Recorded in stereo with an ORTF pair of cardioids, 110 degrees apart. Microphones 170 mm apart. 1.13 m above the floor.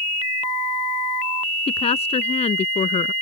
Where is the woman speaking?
40° left; by 3.1 s 45° left.